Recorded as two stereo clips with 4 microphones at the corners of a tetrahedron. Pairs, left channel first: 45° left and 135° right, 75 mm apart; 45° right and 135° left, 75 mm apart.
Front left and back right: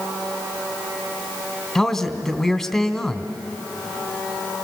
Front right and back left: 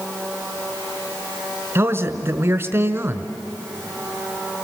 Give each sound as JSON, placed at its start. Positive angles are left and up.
{"t": 1.8, "sound": "a man speaking", "azimuth_deg": 125, "distance_m": 1.4}